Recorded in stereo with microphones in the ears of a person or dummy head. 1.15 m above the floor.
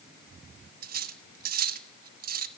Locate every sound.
0.8 s cutlery clinking: 45° right (ahead or behind), 1.4 m